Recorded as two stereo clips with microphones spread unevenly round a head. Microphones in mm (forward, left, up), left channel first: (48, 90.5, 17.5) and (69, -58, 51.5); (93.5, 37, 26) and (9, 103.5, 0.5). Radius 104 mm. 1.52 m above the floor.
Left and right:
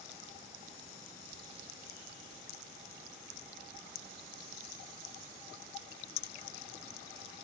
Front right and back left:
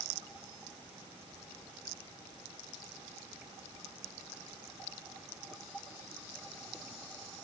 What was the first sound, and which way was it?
Only background noise.